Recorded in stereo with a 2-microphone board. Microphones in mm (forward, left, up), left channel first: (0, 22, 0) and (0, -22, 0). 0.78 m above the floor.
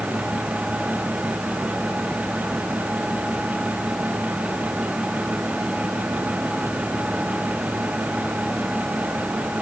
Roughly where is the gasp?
I don't hear a gasp.